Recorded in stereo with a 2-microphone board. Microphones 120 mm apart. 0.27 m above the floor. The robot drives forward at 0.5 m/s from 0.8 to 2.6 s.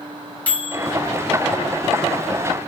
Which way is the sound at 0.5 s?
10° left (ahead or behind).